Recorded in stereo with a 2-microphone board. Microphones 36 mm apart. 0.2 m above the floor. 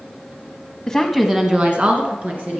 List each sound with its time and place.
0.9 s a woman speaking: 10° left (ahead or behind), 1.1 m; by 2.6 s 50° right (ahead or behind), 3 m